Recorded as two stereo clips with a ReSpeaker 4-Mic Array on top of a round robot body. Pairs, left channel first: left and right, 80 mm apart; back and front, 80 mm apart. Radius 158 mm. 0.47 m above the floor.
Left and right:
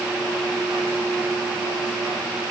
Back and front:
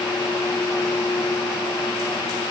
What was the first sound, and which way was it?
Only background noise.